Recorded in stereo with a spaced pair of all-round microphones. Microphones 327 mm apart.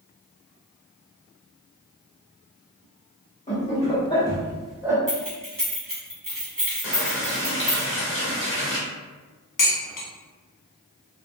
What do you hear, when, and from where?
3.5 s laughter: 20° left (ahead or behind), 1.7 m; by 5.0 s 10° right (ahead or behind), 0.8 m
5.1 s keys jangling: 75° right (ahead or behind), 1.2 m
6.8 s a running tap: 40° left (ahead or behind), 0.9 m
9.6 s dishes clattering: 70° left (ahead or behind), 0.7 m